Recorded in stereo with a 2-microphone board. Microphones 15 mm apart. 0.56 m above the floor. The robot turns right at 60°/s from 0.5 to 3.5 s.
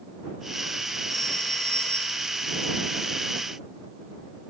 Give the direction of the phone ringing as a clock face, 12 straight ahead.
11 o'clock.